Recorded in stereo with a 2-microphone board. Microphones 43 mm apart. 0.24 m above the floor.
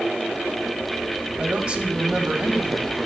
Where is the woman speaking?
25° right (ahead or behind), 1.1 m.